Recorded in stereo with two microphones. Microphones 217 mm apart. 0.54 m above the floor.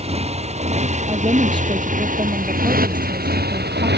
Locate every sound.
0.0 s a motorcycle: 30° right (ahead or behind); by 4.0 s 50° right (ahead or behind)
1.1 s a woman speaking: 20° right (ahead or behind)